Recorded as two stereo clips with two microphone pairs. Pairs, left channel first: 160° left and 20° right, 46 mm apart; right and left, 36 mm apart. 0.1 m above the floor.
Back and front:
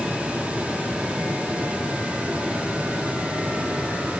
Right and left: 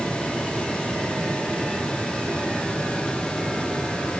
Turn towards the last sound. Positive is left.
No sound to turn to.